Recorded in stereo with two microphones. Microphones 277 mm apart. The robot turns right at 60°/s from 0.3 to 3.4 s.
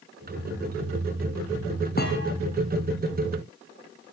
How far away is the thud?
About 1.8 m.